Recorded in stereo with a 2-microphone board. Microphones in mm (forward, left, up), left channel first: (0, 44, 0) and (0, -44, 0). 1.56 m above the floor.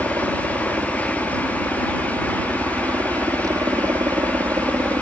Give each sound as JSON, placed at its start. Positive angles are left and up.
{"t": 0.0, "sound": "a helicopter", "side_deg": -35}